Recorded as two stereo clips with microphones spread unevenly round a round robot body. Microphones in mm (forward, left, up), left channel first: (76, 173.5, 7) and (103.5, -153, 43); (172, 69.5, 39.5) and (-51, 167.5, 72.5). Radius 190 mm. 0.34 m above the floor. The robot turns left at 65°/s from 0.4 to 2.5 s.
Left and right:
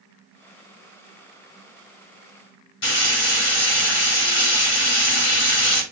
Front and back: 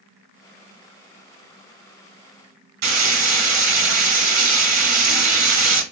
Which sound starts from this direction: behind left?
Frying, at 2.8 s.